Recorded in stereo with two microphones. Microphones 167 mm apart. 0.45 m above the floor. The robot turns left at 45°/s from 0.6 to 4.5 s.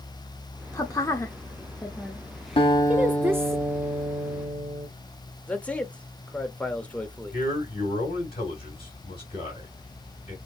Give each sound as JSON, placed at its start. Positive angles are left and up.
{"t": 0.7, "sound": "a woman speaking", "side_deg": 20, "distance_m": 0.7}
{"t": 2.6, "sound": "a guitar", "azimuth_deg": 35, "distance_m": 1.2}
{"t": 5.5, "sound": "a man speaking", "side_deg": 10, "distance_m": 1.0}
{"t": 7.3, "sound": "a man speaking", "side_deg": 35, "distance_m": 2.5}